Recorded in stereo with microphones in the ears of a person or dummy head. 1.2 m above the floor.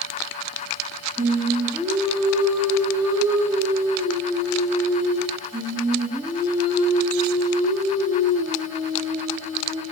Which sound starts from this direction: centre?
Singing, at 1.2 s.